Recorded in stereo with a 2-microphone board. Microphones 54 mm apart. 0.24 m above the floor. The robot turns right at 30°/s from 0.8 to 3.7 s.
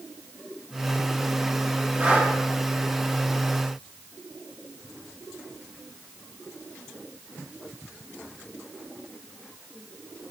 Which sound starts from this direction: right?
Breathing, at 2.0 s.